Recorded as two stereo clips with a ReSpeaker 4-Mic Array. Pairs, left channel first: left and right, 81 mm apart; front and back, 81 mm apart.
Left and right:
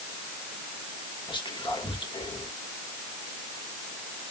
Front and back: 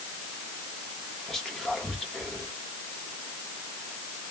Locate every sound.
1.3 s whispering: 85° left, 1.5 m